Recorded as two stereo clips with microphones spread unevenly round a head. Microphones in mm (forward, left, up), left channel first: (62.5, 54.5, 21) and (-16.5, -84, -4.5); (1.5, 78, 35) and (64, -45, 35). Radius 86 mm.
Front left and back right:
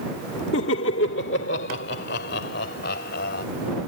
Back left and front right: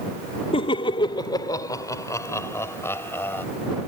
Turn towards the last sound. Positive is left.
turn(degrees=45)